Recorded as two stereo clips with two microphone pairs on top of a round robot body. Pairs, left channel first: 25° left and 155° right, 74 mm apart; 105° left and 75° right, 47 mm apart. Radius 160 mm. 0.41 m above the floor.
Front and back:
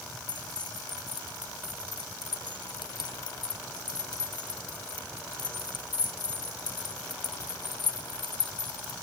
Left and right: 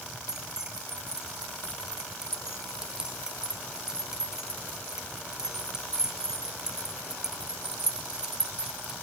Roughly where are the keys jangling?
Ahead.